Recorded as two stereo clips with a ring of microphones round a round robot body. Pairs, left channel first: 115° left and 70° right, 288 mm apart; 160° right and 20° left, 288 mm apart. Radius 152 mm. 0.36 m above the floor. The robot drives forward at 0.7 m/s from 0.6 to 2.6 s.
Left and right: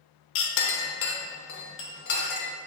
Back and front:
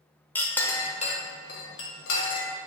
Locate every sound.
0.3 s a clink: 120° left, 0.9 m; by 2.5 s 165° left, 1.8 m